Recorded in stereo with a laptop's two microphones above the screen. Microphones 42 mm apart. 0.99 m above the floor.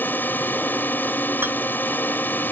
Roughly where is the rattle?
Right.